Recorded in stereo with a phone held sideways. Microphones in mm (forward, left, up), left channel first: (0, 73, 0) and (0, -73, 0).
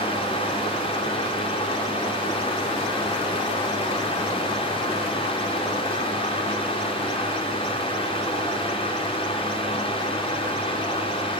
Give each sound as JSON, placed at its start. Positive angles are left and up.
{"t": 0.0, "sound": "a fan", "side_deg": 40, "distance_m": 4.5}